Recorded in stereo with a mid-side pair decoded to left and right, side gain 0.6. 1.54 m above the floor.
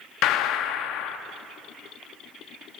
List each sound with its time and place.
0.2 s a gunshot: 65° left, 0.8 m